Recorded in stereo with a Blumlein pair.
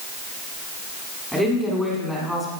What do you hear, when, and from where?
1.3 s a woman speaking: 5° right, 7.5 m; by 2.5 s 5° left, 8.5 m